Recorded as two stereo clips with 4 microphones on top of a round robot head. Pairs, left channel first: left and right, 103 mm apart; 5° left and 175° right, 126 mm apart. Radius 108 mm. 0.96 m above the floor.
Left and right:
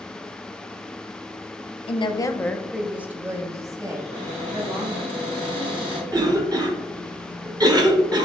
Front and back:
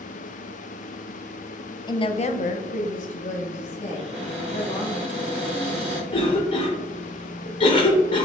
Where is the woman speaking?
60° left, 0.6 m; by 5.0 s 40° right, 1.9 m.